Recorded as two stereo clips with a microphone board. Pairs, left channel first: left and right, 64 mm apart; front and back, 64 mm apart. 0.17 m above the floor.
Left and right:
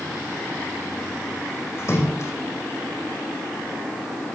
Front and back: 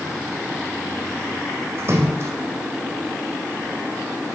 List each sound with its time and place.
1.8 s a splash: 135° left, 3 m